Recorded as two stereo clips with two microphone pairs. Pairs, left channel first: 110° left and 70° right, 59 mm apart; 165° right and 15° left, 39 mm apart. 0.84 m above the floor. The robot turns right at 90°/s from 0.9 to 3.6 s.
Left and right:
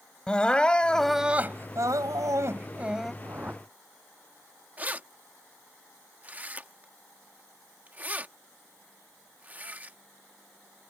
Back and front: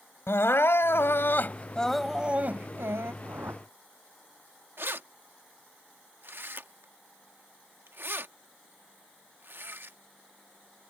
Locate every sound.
0.3 s crying: 175° right; by 3.1 s 25° left
3.2 s a whoosh: 25° right; by 3.6 s 5° left
4.8 s keys jangling: 10° right